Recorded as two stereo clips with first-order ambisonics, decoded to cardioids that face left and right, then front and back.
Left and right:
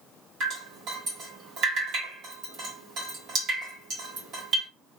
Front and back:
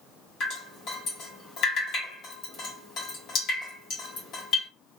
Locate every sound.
0.4 s dripping: 45° right, 1.3 m